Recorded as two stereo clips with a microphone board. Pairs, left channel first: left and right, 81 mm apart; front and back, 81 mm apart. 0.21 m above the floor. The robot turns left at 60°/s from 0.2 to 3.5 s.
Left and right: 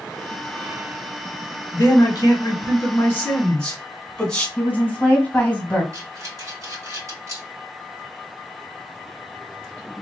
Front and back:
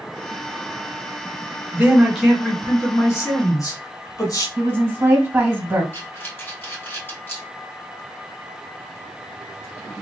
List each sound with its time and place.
1.7 s a man speaking: 120° left, 1.7 m; by 4.5 s 15° left, 1.7 m
4.6 s a woman speaking: 150° left, 1.7 m
5.9 s breathing: 60° right, 2.5 m